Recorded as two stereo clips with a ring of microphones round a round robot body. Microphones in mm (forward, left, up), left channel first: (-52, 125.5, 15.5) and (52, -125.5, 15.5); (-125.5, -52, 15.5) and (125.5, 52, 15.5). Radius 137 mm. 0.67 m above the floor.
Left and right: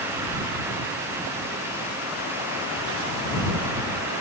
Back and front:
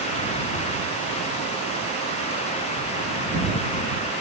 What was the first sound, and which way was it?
Only background noise.